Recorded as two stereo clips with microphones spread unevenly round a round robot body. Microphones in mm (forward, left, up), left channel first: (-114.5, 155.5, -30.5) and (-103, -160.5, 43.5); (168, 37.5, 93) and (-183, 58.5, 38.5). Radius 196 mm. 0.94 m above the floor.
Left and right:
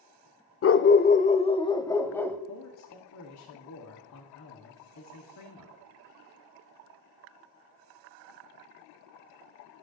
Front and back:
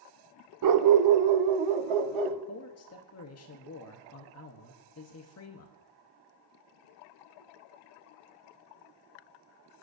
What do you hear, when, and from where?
0.6 s a dog barking: 140° left, 0.8 m; by 2.4 s 175° right, 1.6 m
2.5 s a man speaking: 50° left, 1.4 m